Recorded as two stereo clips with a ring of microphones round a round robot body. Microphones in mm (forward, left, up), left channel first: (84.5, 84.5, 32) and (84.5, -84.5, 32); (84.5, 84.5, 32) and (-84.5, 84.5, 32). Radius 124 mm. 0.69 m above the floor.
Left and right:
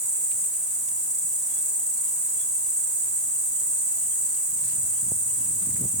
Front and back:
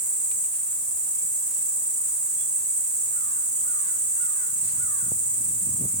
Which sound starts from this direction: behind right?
An insect, at 0.0 s.